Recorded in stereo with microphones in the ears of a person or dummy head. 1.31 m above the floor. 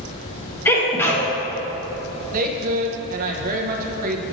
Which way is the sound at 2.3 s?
50° right (ahead or behind).